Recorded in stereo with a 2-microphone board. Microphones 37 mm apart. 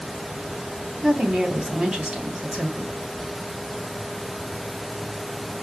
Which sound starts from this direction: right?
A woman speaking, at 1.0 s.